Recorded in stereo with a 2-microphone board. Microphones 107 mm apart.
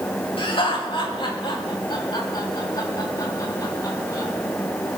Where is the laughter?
60° left (ahead or behind), 6 m; by 4.3 s 35° left (ahead or behind), 9 m.